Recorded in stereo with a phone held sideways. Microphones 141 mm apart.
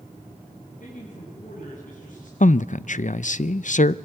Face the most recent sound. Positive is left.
turn(degrees=60)  # may be behind; listen again after turning